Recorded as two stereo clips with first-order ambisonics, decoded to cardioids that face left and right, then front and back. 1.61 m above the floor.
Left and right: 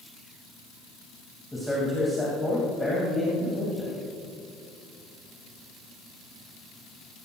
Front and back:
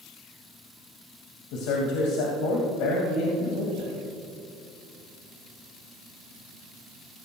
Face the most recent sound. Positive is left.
turn(degrees=5)